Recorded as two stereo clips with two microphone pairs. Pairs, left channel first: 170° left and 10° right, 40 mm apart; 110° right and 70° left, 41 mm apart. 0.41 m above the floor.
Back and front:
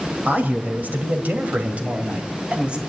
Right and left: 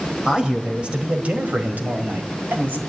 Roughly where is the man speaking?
Ahead.